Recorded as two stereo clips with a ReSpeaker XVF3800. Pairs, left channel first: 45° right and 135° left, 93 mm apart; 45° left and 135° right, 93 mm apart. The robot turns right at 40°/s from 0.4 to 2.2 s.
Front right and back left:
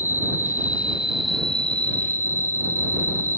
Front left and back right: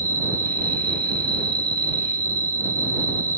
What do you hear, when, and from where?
0.0 s an insect: 170° right; by 3.4 s 100° right